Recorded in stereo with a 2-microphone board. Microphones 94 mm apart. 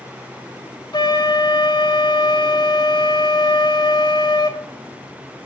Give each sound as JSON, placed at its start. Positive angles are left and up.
{"t": 0.9, "sound": "a flute", "side_deg": 55, "distance_m": 1.4}